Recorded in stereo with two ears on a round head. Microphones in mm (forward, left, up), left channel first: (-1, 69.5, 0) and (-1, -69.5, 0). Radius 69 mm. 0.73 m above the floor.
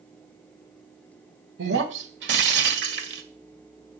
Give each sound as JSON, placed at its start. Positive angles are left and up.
{"t": 1.6, "sound": "breaking glass", "side_deg": -85, "distance_m": 1.8}